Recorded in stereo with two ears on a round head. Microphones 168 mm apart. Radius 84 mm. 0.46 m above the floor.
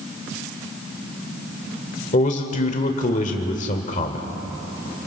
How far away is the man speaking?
About 1.5 m.